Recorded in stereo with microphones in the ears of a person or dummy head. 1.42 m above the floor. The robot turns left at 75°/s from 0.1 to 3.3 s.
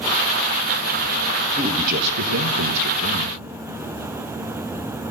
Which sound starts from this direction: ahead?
A man speaking, at 1.6 s.